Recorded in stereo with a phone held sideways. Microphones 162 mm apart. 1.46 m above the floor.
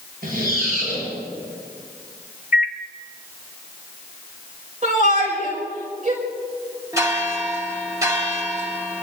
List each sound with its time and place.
0.2 s a squeak: 65° right (ahead or behind), 8.5 m
2.5 s a microwave: 60° left (ahead or behind), 0.6 m
4.8 s a shout: 50° right (ahead or behind), 5.5 m
6.9 s a bell: 20° right (ahead or behind), 2 m